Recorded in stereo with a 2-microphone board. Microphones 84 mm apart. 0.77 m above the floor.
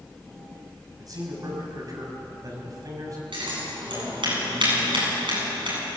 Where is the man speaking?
45° right (ahead or behind), 6 m.